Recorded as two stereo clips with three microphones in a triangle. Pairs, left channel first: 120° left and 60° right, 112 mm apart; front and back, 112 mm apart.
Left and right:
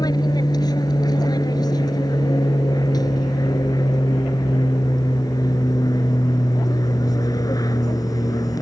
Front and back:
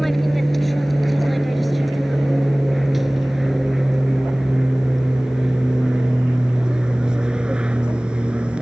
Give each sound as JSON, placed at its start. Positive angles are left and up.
{"t": 0.0, "sound": "an aircraft", "azimuth_deg": 90}